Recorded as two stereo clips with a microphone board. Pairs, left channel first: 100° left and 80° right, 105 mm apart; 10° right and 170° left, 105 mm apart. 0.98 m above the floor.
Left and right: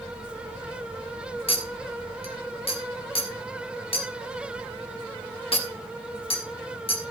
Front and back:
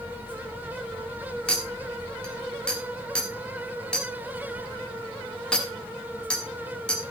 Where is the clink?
70° left, 1.6 m.